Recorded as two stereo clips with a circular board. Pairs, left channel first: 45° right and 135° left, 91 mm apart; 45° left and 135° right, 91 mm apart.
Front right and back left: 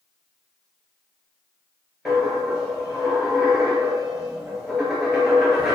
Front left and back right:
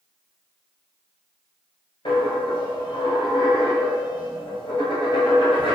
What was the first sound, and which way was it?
A dropped coin, 50° left.